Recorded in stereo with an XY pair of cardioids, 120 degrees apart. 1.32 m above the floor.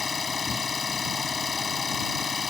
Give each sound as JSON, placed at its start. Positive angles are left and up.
{"t": 0.0, "sound": "an engine running", "azimuth_deg": 25}